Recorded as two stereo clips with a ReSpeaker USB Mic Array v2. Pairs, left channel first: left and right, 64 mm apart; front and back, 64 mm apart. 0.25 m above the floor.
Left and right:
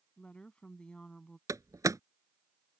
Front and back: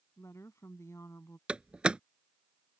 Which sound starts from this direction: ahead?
A woman speaking, at 0.2 s.